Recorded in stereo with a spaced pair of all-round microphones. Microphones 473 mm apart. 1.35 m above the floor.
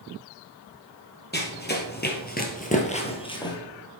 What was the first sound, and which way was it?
Running footsteps, 20° left (ahead or behind).